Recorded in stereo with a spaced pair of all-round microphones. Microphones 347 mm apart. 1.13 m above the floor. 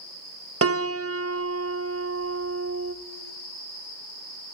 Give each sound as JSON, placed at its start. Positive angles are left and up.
{"t": 0.6, "sound": "a piano", "side_deg": -40, "distance_m": 0.6}